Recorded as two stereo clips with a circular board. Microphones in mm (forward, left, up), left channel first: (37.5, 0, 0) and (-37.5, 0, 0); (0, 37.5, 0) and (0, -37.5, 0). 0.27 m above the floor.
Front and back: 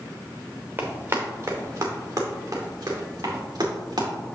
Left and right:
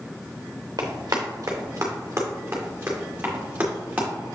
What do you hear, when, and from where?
0.8 s running footsteps: 120° right, 1.6 m; by 4.1 s 160° right, 3.5 m